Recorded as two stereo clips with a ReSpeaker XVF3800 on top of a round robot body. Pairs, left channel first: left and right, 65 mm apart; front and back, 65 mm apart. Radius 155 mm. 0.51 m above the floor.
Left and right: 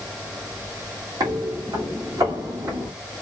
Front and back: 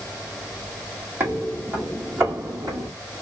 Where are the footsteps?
125° right, 1.9 m; by 2.9 s 135° right, 3 m.